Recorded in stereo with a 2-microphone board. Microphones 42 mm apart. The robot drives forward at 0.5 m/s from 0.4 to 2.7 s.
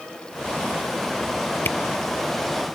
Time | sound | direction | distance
1.6 | a camera shutter | 55° left (ahead or behind) | ?